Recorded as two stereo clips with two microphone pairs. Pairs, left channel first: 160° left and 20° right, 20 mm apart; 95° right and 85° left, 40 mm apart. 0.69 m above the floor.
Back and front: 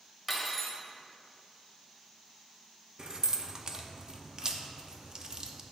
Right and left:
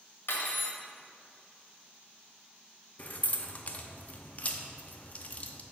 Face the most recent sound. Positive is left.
turn(degrees=-65)